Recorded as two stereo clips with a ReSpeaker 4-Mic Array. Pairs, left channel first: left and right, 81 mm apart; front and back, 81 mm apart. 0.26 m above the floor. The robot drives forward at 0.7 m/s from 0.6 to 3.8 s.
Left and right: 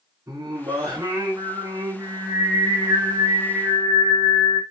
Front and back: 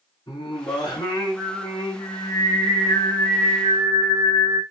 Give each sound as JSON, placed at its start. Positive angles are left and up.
{"t": 0.3, "sound": "singing", "azimuth_deg": -45, "distance_m": 7.5}